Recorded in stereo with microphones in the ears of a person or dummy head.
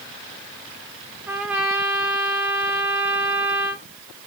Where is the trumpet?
Centre (ahead or behind), 0.5 m.